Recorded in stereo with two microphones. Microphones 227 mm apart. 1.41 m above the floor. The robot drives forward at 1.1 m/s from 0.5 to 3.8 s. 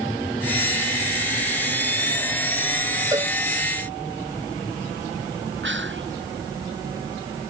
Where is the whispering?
60° right (ahead or behind).